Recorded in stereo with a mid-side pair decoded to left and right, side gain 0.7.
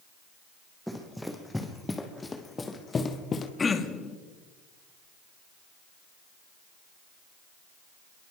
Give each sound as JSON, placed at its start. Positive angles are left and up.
{"t": 0.9, "sound": "running footsteps", "azimuth_deg": 0, "distance_m": 4.0}
{"t": 3.6, "sound": "throat clearing", "azimuth_deg": 20, "distance_m": 2.0}